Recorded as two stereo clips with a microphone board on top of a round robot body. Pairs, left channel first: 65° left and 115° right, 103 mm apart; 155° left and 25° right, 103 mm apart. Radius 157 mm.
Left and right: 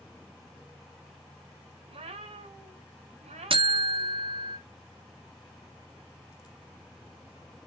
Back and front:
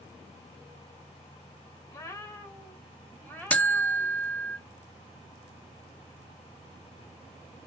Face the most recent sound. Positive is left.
turn(degrees=-125)